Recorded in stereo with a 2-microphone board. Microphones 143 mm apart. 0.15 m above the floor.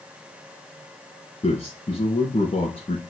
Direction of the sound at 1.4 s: 50° left (ahead or behind).